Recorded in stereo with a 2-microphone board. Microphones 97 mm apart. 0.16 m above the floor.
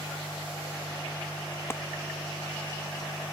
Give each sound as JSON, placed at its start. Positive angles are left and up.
{"t": 1.7, "sound": "a clap", "side_deg": 25}